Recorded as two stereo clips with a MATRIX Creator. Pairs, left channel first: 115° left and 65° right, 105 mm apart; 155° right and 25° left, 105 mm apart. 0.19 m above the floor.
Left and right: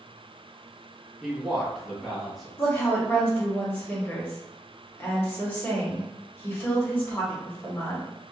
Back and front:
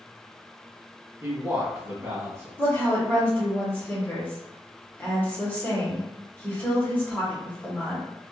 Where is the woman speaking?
155° left, 1.5 m.